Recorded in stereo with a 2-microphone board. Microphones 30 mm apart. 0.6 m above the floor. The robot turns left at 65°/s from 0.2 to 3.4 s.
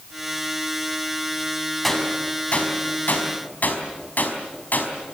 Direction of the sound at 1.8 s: 5° left (ahead or behind).